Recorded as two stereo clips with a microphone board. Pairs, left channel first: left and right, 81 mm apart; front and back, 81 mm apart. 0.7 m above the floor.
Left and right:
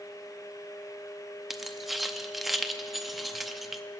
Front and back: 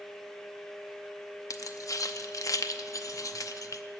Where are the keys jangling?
Straight ahead, 0.6 m.